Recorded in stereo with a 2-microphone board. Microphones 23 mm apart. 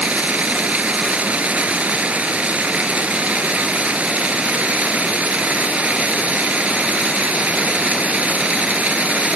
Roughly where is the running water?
Right.